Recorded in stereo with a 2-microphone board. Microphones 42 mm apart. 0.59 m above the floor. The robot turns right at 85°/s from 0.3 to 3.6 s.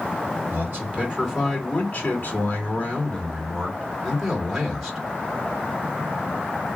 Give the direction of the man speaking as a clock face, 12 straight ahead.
3 o'clock.